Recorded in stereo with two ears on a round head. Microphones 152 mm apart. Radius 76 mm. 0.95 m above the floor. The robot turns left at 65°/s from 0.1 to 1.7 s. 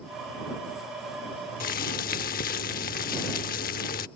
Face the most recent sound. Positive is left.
turn(degrees=55)  # may be behind; listen again after turning